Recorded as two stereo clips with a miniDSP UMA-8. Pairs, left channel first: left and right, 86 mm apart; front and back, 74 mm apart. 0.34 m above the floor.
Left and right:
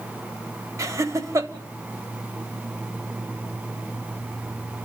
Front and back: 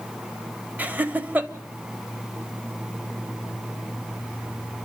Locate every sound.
0.8 s laughter: 120° right, 1.4 m